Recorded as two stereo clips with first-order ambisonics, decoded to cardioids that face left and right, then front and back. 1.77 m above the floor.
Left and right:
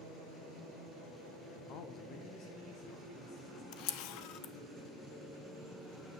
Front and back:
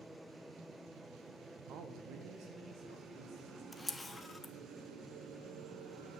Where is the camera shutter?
80° left, 0.6 m.